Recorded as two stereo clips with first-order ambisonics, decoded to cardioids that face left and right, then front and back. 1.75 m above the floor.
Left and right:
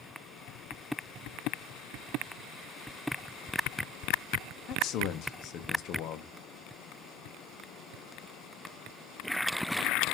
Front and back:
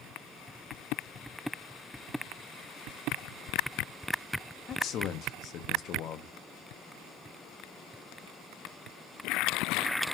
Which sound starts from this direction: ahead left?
A man speaking, at 4.7 s.